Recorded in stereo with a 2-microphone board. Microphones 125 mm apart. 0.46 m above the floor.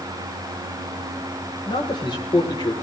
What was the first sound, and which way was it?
A man speaking, 40° left (ahead or behind).